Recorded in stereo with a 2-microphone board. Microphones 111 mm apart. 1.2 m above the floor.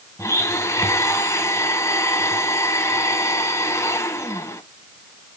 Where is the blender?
25° left (ahead or behind), 1.5 m.